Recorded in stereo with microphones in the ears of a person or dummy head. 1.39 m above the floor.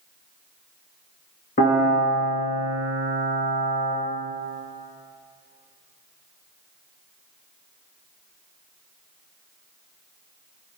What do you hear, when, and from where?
1.6 s a piano: 40° left (ahead or behind), 2.5 m